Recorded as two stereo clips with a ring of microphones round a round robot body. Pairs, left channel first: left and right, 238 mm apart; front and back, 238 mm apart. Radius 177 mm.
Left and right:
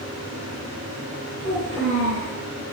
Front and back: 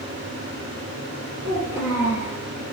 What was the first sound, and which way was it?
A child speaking, 65° right.